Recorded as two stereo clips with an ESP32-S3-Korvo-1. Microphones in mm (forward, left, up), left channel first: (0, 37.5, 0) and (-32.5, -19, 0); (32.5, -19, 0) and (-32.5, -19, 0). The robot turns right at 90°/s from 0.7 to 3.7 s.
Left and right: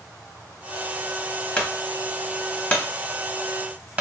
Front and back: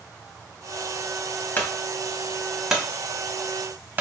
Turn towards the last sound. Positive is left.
turn(degrees=-170)